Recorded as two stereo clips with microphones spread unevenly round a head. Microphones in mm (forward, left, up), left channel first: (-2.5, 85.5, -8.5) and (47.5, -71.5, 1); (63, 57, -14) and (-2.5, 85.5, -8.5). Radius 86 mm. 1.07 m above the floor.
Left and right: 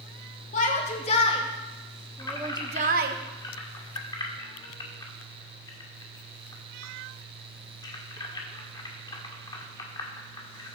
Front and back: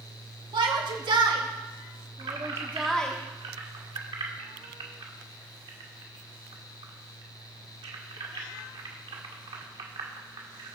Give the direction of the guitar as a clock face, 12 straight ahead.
I don't hear a guitar.